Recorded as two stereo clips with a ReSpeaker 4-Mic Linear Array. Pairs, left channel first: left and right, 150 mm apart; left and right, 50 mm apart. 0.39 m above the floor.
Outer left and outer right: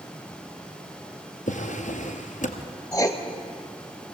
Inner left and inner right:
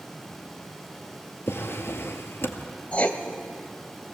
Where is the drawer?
55° left (ahead or behind), 1.8 m.